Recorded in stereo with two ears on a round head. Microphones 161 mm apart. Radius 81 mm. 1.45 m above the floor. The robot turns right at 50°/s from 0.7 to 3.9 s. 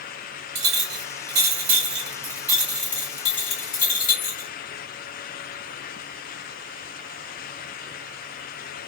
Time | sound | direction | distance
0.6 | a clink | 100° right | 1.8 m